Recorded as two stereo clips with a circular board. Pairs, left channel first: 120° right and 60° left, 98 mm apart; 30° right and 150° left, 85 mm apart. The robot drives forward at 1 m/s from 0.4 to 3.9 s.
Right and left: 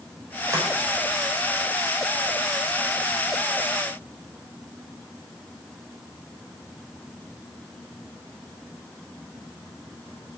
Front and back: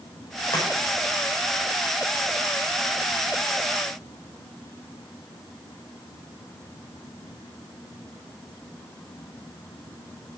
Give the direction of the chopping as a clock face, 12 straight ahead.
12 o'clock.